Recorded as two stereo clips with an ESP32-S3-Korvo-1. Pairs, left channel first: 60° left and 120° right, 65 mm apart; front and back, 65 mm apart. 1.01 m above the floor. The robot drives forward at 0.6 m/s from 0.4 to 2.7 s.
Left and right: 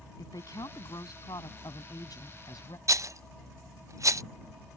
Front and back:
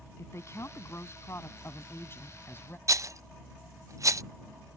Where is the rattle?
150° right.